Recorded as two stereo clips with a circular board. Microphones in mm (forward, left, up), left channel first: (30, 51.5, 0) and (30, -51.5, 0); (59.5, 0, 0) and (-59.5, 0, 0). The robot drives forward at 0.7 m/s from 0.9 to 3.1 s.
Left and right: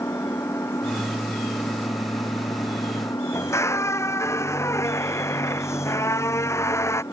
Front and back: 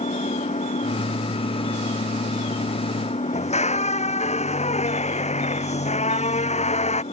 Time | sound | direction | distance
0.0 | an engine running | 25° left | ?
3.3 | a squeak | 25° left | ?